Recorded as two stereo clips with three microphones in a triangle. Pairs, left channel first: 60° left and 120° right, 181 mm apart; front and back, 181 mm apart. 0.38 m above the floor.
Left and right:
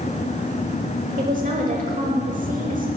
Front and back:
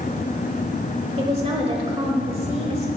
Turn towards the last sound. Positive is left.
turn(degrees=-135)